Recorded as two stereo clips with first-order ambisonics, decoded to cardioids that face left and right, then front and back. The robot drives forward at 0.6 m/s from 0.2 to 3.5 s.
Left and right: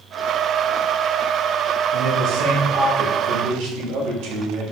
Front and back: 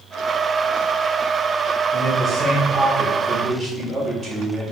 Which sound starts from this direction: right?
A man speaking, at 1.9 s.